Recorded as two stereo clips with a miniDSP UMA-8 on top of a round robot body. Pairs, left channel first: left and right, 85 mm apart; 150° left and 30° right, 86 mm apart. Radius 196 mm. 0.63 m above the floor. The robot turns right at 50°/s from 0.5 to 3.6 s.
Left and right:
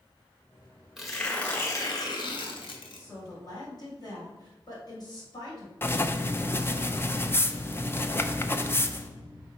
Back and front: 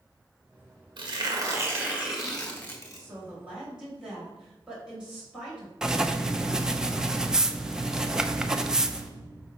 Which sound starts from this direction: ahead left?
Writing, at 5.8 s.